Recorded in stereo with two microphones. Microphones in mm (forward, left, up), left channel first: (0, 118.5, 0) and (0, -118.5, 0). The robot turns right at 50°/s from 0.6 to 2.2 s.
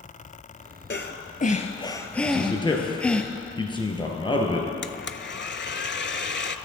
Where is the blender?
50° left (ahead or behind), 0.5 m.